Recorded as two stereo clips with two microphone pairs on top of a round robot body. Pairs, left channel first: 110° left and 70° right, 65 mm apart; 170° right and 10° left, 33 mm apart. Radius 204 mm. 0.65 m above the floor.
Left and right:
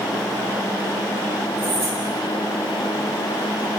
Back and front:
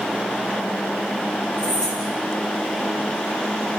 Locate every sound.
1.6 s keys jangling: 95° right, 7.5 m